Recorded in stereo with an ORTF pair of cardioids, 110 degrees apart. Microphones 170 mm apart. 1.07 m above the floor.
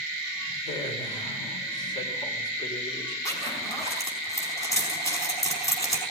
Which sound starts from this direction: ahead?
A zipper, at 3.2 s.